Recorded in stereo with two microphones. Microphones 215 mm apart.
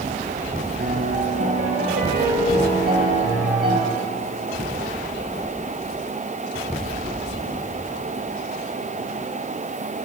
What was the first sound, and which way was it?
A piano, 50° right (ahead or behind).